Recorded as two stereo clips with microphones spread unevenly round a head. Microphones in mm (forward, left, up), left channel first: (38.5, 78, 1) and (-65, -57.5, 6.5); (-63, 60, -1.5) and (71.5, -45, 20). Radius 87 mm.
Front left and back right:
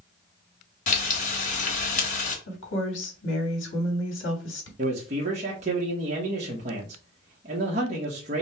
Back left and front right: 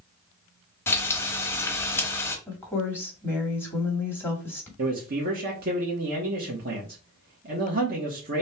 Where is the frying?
60° left, 1.1 m.